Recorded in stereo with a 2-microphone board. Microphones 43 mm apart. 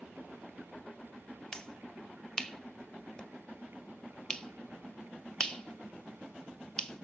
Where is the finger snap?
15° left (ahead or behind), 1.2 m.